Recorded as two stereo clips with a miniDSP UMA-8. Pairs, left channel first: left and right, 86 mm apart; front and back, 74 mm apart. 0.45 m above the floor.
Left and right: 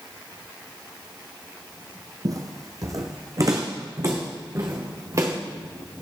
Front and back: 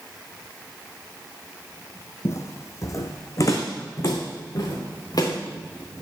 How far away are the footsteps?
About 1.0 m.